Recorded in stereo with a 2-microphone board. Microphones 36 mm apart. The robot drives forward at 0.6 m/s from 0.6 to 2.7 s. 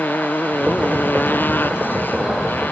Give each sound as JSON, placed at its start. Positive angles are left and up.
{"t": 0.0, "sound": "a motorcycle", "side_deg": 65}